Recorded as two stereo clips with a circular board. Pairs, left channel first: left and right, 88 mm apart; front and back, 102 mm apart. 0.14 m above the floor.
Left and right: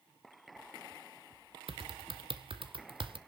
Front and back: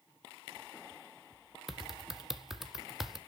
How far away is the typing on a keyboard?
About 1.4 m.